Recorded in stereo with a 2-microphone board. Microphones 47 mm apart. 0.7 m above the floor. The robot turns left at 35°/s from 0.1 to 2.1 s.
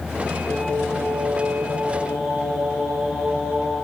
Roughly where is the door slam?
I don't hear a door slam.